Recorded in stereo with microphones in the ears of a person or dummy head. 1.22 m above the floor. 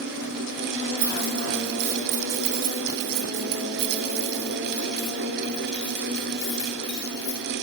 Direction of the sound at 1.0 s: 70° right (ahead or behind).